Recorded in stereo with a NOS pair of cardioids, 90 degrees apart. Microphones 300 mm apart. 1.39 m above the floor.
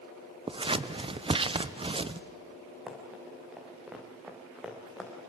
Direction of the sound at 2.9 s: 5° right.